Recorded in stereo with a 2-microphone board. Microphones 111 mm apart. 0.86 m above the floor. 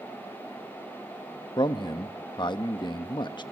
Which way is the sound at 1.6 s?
45° left (ahead or behind).